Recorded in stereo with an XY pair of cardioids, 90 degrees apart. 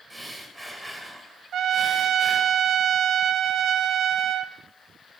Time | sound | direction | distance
0.1 | breathing | 15° right | 2.5 m
1.5 | a trumpet | 70° right | 0.5 m